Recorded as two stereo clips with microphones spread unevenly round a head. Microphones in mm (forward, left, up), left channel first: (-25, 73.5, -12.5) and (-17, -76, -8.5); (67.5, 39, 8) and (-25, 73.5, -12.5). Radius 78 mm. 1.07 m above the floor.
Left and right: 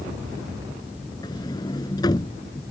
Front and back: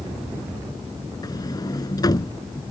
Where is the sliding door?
25° left.